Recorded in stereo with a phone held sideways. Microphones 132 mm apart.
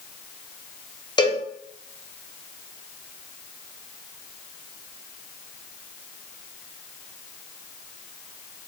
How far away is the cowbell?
About 0.5 m.